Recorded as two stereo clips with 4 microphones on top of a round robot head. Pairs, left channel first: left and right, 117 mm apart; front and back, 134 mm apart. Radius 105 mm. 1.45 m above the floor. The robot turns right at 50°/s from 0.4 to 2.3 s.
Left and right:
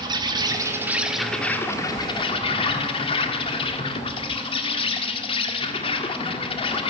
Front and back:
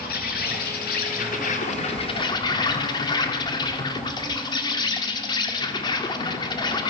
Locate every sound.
0.0 s an insect: 40° right, 1.7 m; by 6.9 s 55° left, 1.7 m